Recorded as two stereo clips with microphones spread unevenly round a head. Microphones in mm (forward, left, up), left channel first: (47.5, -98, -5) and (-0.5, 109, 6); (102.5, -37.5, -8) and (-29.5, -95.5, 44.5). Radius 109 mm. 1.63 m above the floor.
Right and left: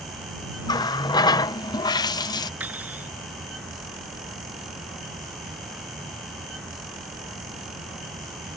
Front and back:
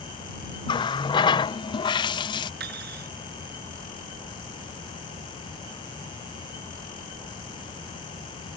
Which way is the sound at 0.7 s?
40° right.